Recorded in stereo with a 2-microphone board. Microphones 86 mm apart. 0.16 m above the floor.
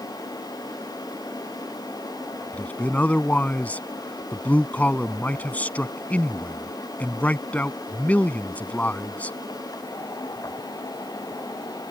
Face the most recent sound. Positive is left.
turn(degrees=20)  # may be behind; listen again after turning